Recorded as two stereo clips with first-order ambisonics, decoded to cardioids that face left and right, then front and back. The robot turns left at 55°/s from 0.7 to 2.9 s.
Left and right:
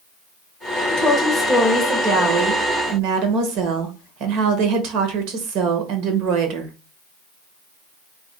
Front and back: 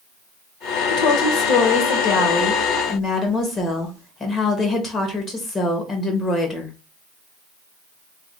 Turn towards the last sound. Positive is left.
turn(degrees=-75)